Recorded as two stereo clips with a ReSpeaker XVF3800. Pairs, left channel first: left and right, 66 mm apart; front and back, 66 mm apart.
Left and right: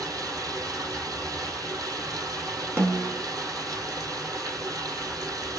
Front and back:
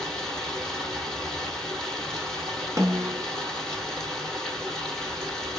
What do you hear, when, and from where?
0.0 s running water: 75° right, 2.5 m
2.8 s a snare drum: 145° right, 1.1 m